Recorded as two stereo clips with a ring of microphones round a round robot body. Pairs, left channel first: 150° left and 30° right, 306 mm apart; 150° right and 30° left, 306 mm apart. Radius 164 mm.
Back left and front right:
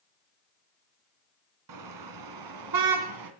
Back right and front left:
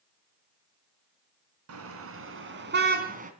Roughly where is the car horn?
Ahead.